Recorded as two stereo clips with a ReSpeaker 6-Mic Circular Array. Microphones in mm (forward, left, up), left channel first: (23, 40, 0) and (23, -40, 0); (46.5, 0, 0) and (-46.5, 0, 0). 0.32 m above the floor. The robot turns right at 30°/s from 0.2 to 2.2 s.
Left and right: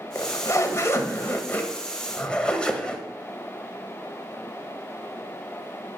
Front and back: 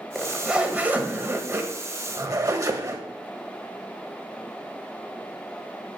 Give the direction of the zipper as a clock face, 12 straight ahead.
9 o'clock.